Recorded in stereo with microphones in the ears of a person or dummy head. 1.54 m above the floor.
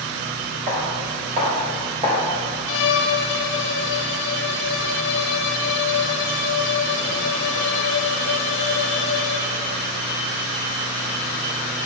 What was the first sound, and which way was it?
Footsteps, 35° right (ahead or behind).